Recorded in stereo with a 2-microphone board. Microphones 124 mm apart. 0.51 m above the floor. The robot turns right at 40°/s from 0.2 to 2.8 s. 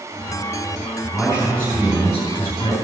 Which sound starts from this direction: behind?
A man speaking, at 1.1 s.